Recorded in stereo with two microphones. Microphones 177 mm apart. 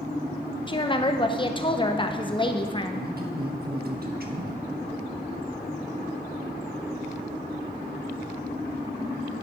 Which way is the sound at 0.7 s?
30° left (ahead or behind).